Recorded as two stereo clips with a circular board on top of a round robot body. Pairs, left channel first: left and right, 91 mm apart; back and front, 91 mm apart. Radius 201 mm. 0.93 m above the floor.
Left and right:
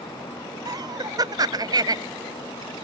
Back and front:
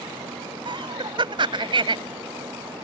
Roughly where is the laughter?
Ahead right.